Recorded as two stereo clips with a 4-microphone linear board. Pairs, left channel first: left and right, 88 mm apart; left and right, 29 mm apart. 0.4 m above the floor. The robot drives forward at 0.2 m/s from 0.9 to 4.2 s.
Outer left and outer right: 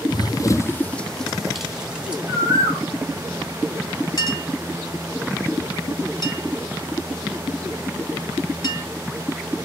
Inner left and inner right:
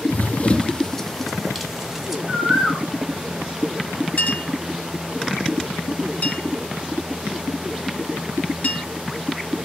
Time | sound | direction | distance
0.1 | running footsteps | 55° left (ahead or behind) | 0.6 m
2.3 | a bird | 35° right (ahead or behind) | 4 m
4.2 | a clink | 45° left (ahead or behind) | 2 m